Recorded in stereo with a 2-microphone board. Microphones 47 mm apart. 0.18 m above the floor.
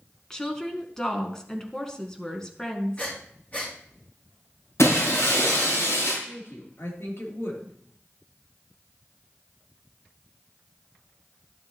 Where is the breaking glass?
80° left, 6.5 m.